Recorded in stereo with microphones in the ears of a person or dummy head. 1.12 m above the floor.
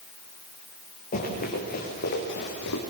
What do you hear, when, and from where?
1.1 s running footsteps: 40° left (ahead or behind), 7 m; by 2.8 s 60° left (ahead or behind), 6 m